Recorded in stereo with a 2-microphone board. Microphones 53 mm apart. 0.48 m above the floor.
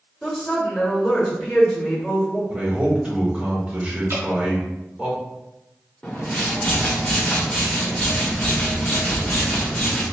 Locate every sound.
0.2 s a woman speaking: 10° left (ahead or behind), 1.2 m
2.5 s a man speaking: 20° right (ahead or behind), 1.2 m
4.1 s dripping: 55° right (ahead or behind), 1.4 m
6.0 s a whoosh: 20° left (ahead or behind), 1.1 m